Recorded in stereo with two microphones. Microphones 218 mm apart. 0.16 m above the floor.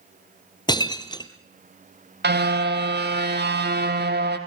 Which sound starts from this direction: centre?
Breaking glass, at 0.7 s.